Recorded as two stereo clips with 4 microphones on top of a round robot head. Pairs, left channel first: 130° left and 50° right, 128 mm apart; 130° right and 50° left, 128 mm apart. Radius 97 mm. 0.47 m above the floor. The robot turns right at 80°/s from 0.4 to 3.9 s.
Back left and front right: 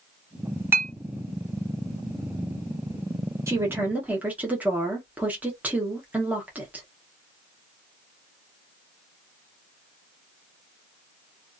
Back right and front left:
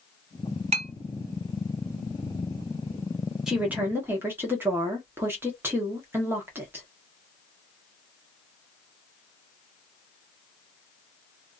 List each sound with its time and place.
0.7 s a clink: 20° left, 1.2 m; by 0.9 s 35° left, 1.2 m
3.5 s a woman speaking: 25° right, 1.1 m; by 6.8 s 10° left, 1.1 m